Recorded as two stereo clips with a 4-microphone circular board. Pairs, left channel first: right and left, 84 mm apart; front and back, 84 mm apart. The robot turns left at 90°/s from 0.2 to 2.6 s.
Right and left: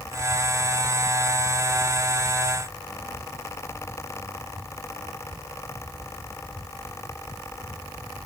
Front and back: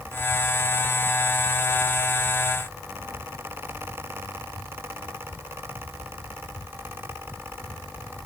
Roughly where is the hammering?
I don't hear hammering.